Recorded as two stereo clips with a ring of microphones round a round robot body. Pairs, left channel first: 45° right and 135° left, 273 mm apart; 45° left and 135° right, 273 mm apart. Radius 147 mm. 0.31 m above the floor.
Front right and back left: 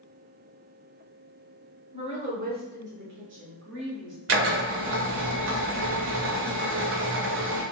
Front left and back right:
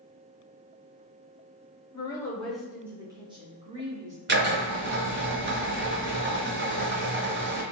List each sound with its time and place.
1.9 s a woman speaking: 95° left, 1.0 m; by 4.2 s 170° left, 1.7 m
4.3 s a drill: 175° left, 0.9 m